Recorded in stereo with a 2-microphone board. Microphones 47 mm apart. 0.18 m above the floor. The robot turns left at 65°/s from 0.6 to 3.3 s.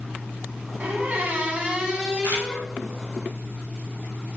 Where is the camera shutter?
50° right (ahead or behind), 1.5 m; by 2.5 s 65° right (ahead or behind), 1.5 m.